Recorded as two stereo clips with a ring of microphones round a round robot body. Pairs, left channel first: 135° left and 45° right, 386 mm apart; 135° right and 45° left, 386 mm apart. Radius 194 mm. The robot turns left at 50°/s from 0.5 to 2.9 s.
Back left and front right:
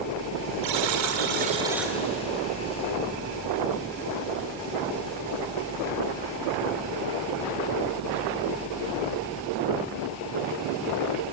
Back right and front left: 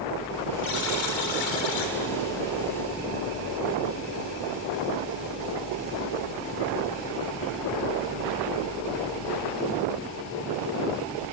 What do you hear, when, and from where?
0.6 s a buzzer: 75° right, 3 m; by 1.9 s 140° right, 3 m